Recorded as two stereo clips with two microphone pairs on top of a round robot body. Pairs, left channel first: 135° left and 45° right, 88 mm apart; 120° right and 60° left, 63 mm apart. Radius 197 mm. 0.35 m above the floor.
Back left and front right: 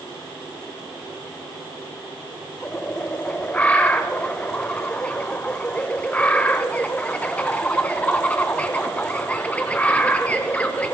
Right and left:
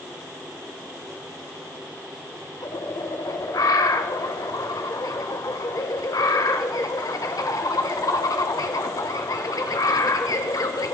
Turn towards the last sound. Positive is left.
turn(degrees=-150)